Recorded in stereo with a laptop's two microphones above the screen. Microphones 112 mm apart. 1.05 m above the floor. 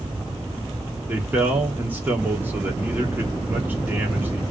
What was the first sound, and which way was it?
A man speaking, 15° right (ahead or behind).